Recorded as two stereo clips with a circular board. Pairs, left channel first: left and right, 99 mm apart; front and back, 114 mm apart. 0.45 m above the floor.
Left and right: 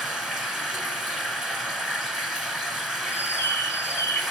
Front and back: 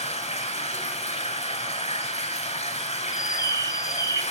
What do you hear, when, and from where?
0.0 s running water: 5° right, 0.8 m
3.1 s a bird: 40° left, 0.5 m